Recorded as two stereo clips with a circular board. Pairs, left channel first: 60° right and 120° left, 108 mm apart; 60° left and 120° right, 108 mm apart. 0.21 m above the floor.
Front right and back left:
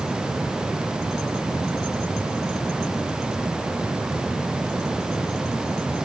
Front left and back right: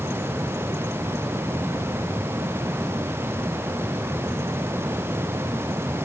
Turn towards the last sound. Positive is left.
No sound to turn to.